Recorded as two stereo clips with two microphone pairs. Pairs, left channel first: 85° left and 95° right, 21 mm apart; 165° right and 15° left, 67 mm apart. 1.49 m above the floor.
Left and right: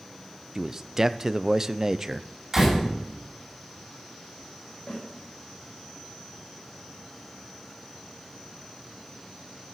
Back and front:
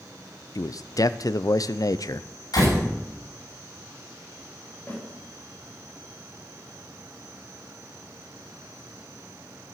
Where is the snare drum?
130° left, 8.5 m.